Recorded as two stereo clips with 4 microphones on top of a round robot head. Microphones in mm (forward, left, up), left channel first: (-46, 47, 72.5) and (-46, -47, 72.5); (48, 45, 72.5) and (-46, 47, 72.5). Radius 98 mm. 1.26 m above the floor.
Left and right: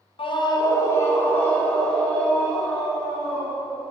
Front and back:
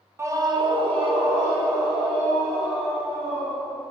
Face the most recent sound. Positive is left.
turn(degrees=180)